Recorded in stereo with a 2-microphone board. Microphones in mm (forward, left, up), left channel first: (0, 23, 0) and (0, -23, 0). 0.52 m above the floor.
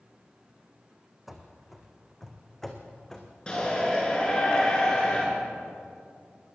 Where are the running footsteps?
5° right (ahead or behind), 2 m; by 3.3 s 15° left (ahead or behind), 3 m.